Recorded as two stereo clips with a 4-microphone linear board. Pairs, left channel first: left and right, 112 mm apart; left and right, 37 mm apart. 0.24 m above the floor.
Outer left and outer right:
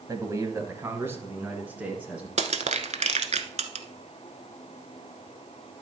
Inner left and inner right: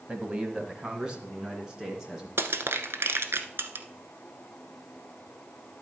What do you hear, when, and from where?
0.1 s a man speaking: 30° right (ahead or behind), 1.1 m; by 2.3 s 10° right (ahead or behind), 3 m
2.4 s crushing: 80° right, 0.8 m